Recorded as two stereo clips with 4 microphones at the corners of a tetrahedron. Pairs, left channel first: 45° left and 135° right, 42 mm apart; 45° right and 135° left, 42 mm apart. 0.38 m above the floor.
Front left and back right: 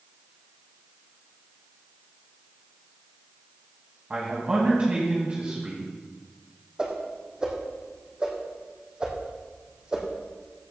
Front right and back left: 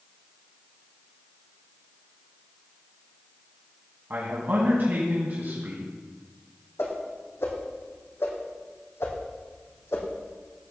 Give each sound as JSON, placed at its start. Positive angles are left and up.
{"t": 4.1, "sound": "a man speaking", "azimuth_deg": 170, "distance_m": 2.5}
{"t": 6.8, "sound": "a whoosh", "azimuth_deg": -65, "distance_m": 3.0}